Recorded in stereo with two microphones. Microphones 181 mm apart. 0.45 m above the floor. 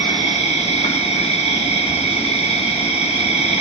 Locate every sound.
0.0 s an insect: 35° left (ahead or behind), 1.7 m